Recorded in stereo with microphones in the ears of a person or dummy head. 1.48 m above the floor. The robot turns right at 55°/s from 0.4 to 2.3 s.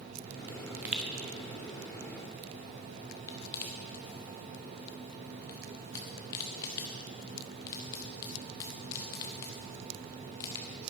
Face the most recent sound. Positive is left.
turn(degrees=25)  # may be behind; listen again after turning